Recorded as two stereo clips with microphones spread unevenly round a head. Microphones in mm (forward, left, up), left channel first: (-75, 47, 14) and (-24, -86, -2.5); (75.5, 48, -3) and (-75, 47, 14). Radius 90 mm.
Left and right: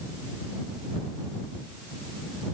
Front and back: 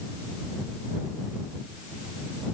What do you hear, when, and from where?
Only background noise.